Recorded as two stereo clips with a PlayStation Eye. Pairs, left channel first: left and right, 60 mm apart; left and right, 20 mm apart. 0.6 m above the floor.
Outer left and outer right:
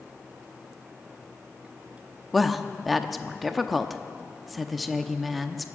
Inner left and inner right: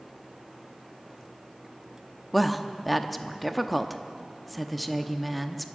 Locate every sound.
2.3 s a woman speaking: centre (ahead or behind), 0.7 m